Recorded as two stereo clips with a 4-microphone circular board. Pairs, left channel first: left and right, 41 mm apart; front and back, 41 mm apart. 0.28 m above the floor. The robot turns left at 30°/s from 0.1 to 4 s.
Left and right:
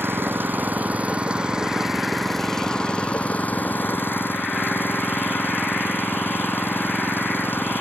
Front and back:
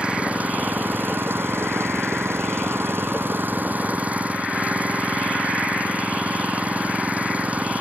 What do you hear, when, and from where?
0.0 s an engine running: 115° right; by 7.8 s 125° left